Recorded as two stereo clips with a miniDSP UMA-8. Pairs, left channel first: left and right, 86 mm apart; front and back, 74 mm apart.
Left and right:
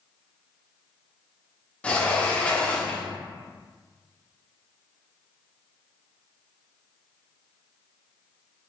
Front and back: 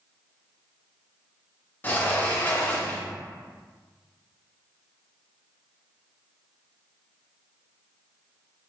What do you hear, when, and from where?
1.8 s a sliding door: 30° left, 0.6 m